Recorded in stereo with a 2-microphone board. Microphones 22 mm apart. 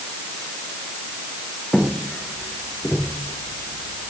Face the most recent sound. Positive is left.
turn(degrees=65)  # may be behind; listen again after turning